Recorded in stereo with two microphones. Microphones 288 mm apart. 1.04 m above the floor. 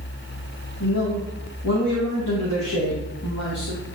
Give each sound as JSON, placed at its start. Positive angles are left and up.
{"t": 0.8, "sound": "a man speaking", "side_deg": 70, "distance_m": 1.9}